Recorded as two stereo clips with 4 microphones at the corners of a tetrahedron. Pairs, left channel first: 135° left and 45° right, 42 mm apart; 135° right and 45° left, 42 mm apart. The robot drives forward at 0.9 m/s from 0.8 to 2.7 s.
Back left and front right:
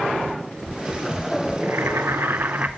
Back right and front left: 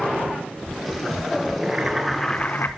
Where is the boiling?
30° right, 1.0 m; by 2.7 s 105° right, 0.5 m.